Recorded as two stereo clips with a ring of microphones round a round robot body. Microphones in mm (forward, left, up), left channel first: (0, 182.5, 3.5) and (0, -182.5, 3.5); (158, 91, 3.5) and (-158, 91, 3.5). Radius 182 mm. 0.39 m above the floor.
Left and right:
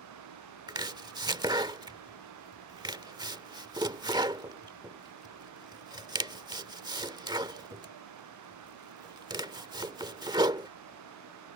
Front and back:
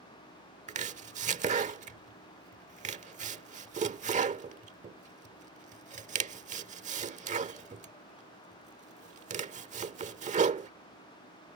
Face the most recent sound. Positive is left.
turn(degrees=-150)